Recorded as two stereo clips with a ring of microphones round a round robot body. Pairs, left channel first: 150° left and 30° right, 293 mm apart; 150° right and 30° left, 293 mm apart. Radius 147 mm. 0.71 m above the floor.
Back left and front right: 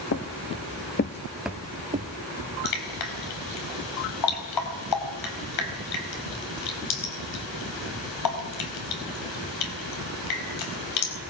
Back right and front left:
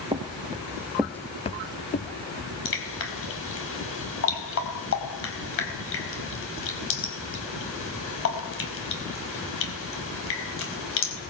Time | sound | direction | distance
0.1 | footsteps | 100° left | 1.8 m
2.6 | dripping | 165° left | 4.5 m